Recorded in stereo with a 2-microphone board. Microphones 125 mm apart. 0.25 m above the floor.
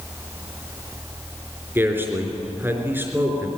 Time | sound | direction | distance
1.8 | a man speaking | 20° right (ahead or behind) | 3.5 m